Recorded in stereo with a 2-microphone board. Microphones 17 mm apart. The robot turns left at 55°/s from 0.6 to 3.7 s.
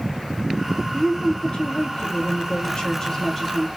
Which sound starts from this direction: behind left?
A woman speaking, at 0.9 s.